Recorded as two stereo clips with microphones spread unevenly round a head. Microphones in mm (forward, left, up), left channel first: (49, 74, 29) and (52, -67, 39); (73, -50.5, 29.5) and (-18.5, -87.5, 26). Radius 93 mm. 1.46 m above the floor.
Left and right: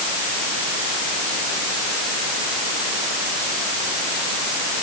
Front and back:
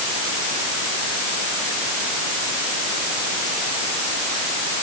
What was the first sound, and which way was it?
Only background noise.